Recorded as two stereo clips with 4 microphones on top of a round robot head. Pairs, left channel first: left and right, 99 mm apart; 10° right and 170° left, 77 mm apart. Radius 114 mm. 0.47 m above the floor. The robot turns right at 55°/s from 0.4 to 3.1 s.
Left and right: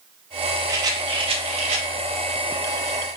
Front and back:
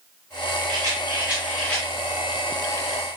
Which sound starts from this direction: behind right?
A rattle, at 0.7 s.